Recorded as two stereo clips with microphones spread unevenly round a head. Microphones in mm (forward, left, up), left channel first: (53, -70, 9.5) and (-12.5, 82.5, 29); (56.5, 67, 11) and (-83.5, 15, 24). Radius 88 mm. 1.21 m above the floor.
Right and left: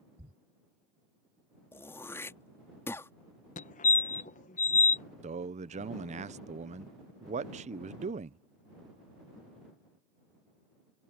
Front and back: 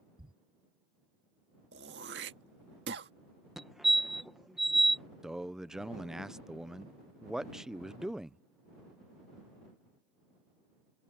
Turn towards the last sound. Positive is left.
turn(degrees=110)